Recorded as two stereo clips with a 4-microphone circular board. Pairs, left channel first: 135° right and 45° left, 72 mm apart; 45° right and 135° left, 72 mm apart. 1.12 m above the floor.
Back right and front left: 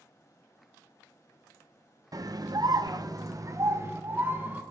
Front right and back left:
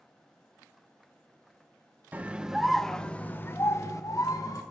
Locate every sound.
2.1 s a scream: 70° left, 0.9 m; by 4.6 s 15° right, 1.3 m